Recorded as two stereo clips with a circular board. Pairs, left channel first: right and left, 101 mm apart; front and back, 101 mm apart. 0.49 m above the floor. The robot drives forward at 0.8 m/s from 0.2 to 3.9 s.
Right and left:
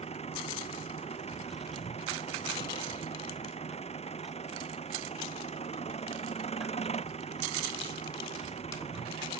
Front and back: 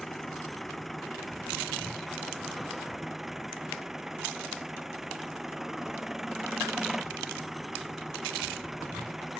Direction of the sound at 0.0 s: 90° right.